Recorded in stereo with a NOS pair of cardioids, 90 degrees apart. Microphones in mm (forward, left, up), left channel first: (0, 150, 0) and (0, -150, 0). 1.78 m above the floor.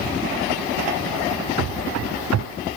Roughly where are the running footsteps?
Ahead right.